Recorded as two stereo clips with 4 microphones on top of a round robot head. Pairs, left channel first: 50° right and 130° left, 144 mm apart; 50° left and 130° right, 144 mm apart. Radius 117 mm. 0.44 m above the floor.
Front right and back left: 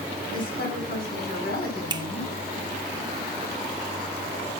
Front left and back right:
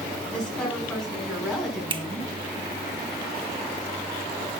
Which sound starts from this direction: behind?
A finger snap, at 1.9 s.